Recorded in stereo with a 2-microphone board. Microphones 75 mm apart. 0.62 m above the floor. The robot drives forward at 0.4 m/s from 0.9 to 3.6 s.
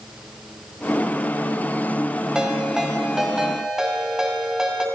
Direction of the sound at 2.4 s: 10° right (ahead or behind).